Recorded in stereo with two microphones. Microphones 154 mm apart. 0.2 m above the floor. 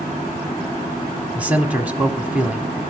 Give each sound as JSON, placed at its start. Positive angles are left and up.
{"t": 1.4, "sound": "a man speaking", "side_deg": -10, "distance_m": 1.3}